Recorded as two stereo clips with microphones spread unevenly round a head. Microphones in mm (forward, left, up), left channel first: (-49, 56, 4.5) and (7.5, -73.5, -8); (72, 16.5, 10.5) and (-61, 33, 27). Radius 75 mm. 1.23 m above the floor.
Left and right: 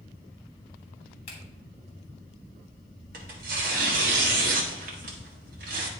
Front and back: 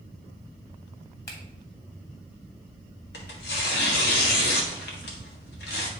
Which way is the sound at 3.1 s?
30° right.